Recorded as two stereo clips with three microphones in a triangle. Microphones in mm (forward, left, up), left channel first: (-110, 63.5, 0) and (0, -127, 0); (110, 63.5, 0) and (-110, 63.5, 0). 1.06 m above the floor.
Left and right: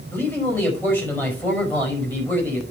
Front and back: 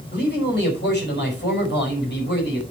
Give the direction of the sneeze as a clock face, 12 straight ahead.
I don't hear a sneeze.